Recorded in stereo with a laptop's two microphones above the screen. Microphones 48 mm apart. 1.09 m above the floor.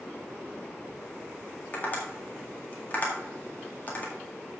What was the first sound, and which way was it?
Tapping, 35° left (ahead or behind).